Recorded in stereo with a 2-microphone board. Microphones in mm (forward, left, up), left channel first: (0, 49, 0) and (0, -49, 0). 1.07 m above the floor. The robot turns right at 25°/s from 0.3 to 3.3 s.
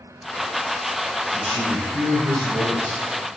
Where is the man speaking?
85° right, 4.5 m; by 3.0 s 40° right, 4.5 m.